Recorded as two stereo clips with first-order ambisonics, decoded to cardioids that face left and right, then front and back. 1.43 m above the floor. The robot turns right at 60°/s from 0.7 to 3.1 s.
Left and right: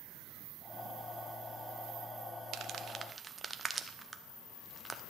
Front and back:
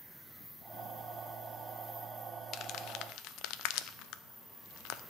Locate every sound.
2.5 s crumpling: 50° right, 0.6 m; by 5.0 s 15° right, 0.6 m